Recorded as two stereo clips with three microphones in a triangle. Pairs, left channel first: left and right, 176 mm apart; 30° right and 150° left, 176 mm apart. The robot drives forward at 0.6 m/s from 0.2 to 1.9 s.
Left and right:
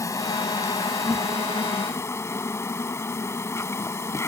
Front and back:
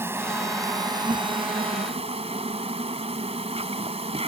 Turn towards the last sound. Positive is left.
turn(degrees=150)